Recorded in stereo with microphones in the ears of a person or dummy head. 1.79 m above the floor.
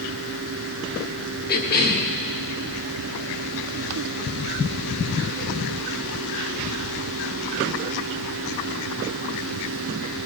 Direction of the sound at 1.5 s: 55° left (ahead or behind).